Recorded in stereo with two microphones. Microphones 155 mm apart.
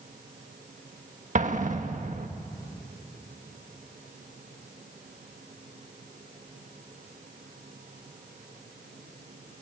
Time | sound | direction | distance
1.4 | an explosion | 55° right (ahead or behind) | 1.5 m